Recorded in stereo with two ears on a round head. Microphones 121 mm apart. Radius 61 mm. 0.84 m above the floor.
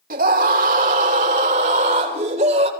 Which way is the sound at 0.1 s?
65° right (ahead or behind).